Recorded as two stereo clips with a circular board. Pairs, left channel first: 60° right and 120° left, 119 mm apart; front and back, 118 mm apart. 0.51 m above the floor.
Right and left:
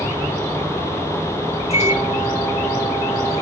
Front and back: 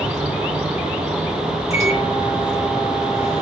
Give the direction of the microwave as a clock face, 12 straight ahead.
1 o'clock.